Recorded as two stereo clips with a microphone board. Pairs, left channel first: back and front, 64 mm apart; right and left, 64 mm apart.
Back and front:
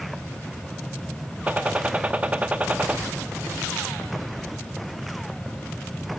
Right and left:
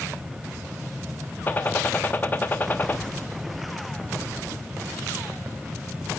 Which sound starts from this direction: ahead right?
A gunshot, at 1.5 s.